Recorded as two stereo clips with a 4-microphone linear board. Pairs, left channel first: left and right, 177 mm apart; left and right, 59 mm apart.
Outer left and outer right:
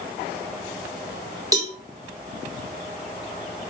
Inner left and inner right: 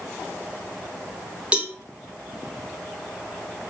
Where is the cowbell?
20° right (ahead or behind), 0.5 m.